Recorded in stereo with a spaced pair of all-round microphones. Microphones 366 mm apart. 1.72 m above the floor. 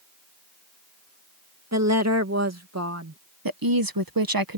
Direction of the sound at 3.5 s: 65° right (ahead or behind).